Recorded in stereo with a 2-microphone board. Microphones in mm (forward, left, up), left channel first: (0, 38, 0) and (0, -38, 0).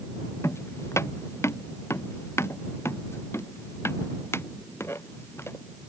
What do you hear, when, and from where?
0.4 s footsteps: 35° left (ahead or behind); by 5.6 s 30° left (ahead or behind)